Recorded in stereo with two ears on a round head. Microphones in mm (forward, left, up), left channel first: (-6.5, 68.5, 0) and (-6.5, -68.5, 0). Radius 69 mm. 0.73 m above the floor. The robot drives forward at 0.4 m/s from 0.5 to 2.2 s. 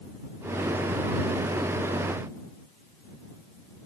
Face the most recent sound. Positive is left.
No sound to turn to.